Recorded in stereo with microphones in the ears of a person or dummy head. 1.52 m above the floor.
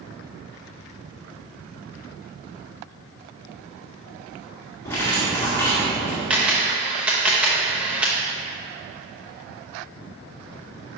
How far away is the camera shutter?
About 0.8 m.